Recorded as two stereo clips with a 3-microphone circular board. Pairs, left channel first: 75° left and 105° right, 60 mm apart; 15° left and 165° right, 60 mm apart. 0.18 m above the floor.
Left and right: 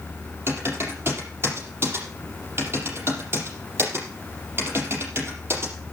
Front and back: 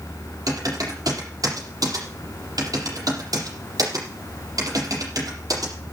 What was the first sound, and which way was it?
Typing on a keyboard, 155° right.